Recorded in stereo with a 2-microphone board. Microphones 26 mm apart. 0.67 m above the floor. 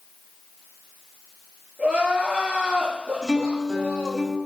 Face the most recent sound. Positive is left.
turn(degrees=-15)  # may be behind; listen again after turning